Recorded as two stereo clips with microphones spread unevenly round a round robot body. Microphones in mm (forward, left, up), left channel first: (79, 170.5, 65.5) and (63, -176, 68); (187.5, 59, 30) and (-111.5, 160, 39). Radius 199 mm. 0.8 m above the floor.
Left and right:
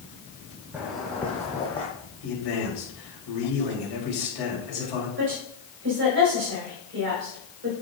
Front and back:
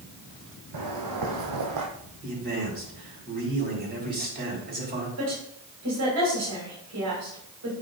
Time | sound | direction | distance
0.7 | footsteps | straight behind | 2.0 m
2.2 | a man speaking | 105° left | 4.5 m
5.2 | a woman speaking | 150° right | 4.5 m